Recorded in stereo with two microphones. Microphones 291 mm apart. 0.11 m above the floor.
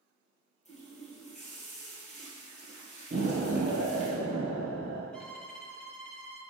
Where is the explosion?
40° right (ahead or behind), 1.4 m.